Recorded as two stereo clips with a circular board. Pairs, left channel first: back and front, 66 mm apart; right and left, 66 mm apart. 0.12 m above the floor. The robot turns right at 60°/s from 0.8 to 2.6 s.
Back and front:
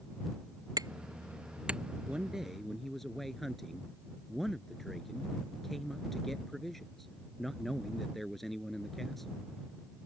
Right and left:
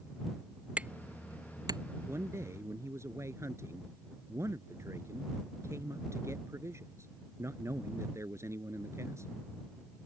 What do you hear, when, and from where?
0.8 s hammering: 20° left; by 1.8 s 80° left
2.1 s a man speaking: 60° left; by 9.4 s 95° left